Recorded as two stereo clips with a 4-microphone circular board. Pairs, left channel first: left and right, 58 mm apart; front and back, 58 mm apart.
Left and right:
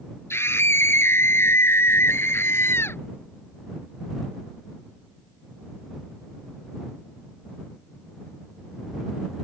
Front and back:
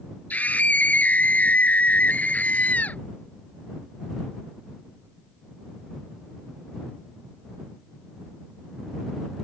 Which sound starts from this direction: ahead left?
A scream, at 0.3 s.